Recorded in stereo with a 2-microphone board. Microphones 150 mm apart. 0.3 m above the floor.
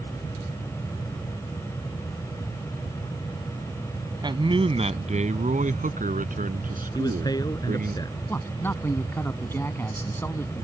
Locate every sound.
4.2 s a man speaking: 30° right (ahead or behind); by 8.0 s 70° right (ahead or behind)
7.0 s a man speaking: 25° left (ahead or behind)
8.3 s a man speaking: 15° left (ahead or behind)